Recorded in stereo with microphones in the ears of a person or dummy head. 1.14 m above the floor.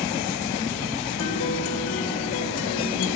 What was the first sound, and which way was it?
A guitar, 80° left.